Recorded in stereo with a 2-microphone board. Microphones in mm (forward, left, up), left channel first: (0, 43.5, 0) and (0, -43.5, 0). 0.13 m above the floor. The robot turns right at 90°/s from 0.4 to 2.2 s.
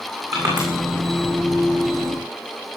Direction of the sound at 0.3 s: 45° right (ahead or behind).